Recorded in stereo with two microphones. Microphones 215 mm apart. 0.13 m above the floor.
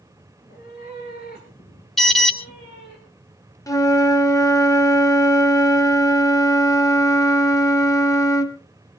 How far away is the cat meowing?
About 5.5 m.